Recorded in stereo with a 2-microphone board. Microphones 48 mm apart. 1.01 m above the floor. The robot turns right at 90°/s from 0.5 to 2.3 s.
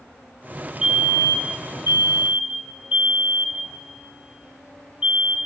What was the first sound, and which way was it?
A fire alarm, 25° right (ahead or behind).